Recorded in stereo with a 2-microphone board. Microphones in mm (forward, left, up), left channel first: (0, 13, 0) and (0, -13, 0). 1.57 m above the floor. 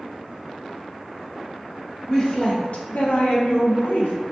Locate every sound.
2.1 s a woman speaking: 25° left (ahead or behind), 0.8 m; by 4.1 s 80° left, 1.1 m